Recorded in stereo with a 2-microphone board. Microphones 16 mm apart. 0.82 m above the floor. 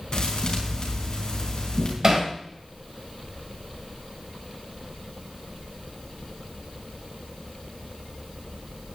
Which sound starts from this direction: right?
Hammering, at 2.0 s.